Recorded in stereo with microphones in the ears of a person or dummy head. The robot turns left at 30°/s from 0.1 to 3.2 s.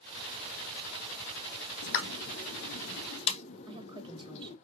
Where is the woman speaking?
25° right (ahead or behind), 0.9 m.